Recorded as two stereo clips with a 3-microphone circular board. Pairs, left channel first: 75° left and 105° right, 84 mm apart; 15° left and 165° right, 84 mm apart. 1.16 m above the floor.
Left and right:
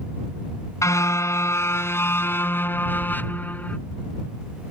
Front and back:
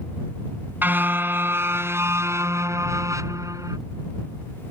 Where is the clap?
I don't hear a clap.